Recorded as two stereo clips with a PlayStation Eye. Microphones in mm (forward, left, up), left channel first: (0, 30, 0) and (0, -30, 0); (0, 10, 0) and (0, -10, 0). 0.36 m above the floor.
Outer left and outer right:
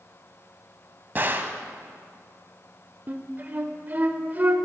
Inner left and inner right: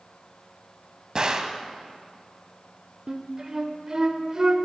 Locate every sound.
1.1 s a gunshot: 35° right (ahead or behind), 0.5 m
3.1 s a flute: 30° right (ahead or behind), 0.5 m